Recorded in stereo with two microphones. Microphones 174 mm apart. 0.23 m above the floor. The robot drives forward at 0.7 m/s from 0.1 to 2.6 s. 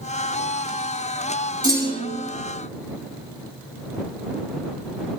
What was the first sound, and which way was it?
A clunk, 20° right (ahead or behind).